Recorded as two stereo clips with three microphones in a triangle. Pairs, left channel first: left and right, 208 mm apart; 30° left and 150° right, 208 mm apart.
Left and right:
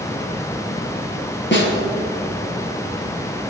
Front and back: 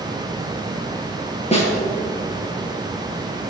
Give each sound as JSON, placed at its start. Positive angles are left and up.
{"t": 1.5, "sound": "a snare drum", "azimuth_deg": 85, "distance_m": 3.0}